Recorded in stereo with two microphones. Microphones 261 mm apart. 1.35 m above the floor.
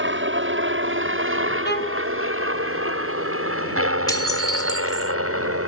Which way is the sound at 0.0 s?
45° right (ahead or behind).